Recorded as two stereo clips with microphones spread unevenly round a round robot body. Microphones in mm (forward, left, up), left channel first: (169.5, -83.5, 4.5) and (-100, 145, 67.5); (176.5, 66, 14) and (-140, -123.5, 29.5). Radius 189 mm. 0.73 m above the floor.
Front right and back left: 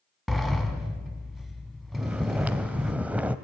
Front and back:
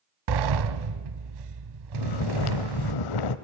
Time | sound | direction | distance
0.3 | a sliding door | 135° right | 1.2 m
1.9 | snoring | 60° left | 0.9 m